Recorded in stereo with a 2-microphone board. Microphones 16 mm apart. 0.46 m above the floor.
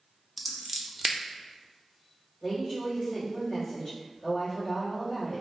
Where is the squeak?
I don't hear a squeak.